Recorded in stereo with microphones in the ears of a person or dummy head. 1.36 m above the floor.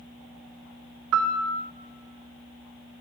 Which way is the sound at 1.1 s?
70° right (ahead or behind).